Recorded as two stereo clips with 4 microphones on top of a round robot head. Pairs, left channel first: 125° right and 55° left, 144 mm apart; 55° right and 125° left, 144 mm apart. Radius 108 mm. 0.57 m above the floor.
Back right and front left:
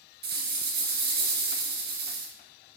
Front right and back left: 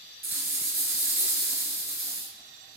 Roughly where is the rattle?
Ahead left.